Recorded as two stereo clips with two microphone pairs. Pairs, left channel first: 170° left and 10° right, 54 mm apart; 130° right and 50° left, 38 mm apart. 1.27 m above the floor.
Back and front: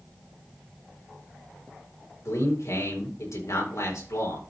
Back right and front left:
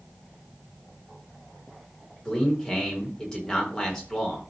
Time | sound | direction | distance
2.2 | a man speaking | 160° left | 4 m